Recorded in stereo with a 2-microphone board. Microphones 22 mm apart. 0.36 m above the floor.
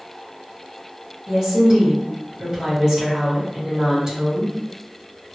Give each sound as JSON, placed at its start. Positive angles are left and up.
{"t": 1.3, "sound": "a woman speaking", "side_deg": -35, "distance_m": 2.0}